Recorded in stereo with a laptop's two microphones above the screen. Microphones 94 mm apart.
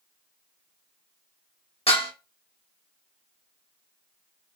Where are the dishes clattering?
85° left, 1.4 m.